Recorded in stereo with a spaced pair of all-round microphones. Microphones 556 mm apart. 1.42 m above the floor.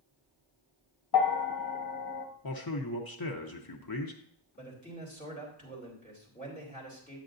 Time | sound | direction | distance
1.1 | a bell | 40° left (ahead or behind) | 0.9 m
2.4 | a man speaking | 40° left (ahead or behind) | 0.7 m
4.6 | a man speaking | 15° left (ahead or behind) | 3 m